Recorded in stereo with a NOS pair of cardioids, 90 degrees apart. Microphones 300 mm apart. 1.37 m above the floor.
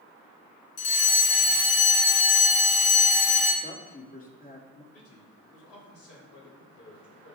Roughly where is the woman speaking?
Ahead left.